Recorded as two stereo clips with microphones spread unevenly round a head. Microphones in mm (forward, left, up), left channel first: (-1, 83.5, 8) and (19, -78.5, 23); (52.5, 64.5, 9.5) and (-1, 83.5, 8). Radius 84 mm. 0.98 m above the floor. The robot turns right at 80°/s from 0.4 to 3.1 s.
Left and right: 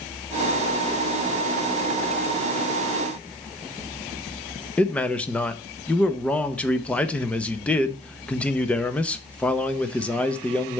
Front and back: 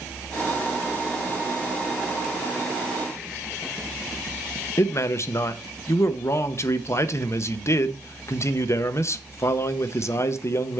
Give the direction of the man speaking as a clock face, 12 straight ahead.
11 o'clock.